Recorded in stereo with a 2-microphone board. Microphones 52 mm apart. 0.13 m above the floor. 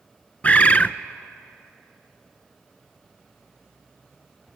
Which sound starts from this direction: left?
A bird, at 0.4 s.